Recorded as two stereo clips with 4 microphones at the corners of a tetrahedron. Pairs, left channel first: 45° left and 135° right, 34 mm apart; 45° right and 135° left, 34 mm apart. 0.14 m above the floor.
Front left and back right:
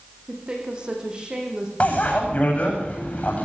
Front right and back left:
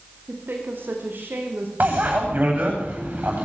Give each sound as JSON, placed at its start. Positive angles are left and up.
{"t": 0.3, "sound": "a woman speaking", "azimuth_deg": 160, "distance_m": 7.5}
{"t": 1.8, "sound": "a bicycle bell", "azimuth_deg": 95, "distance_m": 9.0}